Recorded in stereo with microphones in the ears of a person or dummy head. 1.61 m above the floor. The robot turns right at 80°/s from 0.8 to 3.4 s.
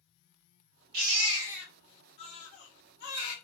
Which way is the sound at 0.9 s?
55° right (ahead or behind).